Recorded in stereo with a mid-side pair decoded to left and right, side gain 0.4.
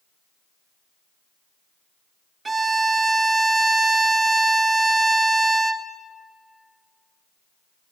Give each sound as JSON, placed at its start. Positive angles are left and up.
{"t": 2.5, "sound": "a violin", "azimuth_deg": -35, "distance_m": 1.2}